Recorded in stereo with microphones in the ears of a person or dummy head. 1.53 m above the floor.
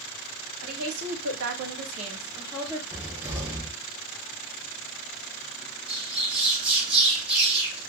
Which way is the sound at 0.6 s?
80° right.